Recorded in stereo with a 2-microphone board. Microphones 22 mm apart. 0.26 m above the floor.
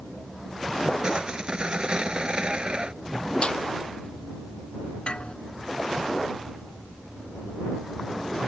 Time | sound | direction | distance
1.0 | sawing | 45° right (ahead or behind) | ?
3.4 | a snare drum | 50° left (ahead or behind) | ?
5.1 | a doorbell | 55° left (ahead or behind) | ?